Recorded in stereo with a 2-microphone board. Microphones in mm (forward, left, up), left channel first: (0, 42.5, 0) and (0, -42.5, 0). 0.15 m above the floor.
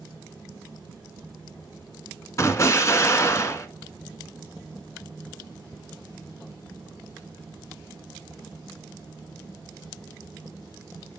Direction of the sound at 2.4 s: 35° left (ahead or behind).